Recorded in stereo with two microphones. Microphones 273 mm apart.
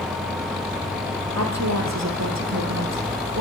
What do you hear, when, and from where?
1.3 s a woman speaking: 70° right (ahead or behind), 5 m